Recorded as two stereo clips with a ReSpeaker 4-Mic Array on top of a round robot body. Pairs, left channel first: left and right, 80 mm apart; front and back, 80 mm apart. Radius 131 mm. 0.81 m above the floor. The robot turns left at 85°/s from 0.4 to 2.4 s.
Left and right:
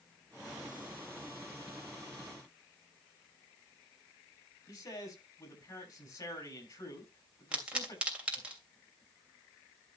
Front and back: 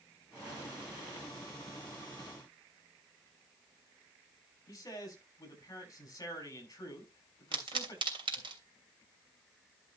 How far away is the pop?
About 3 m.